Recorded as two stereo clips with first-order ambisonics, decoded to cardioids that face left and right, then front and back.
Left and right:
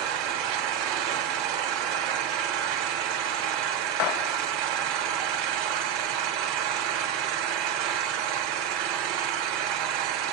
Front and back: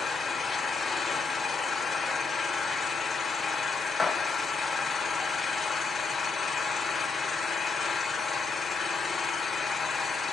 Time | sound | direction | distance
0.0 | an engine running | 80° right | 0.9 m
4.0 | a gunshot | 80° left | 0.6 m